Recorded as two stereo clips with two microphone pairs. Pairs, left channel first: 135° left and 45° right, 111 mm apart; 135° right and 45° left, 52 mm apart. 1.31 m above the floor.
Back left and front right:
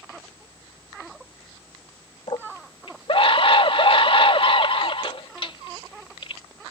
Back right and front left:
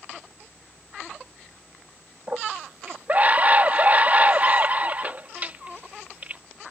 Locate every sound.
2.3 s a scream: 105° left